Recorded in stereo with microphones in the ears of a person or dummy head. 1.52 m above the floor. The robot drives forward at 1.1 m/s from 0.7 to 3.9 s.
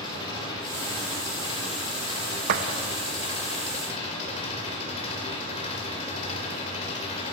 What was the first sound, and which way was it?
An engine running, 20° left (ahead or behind).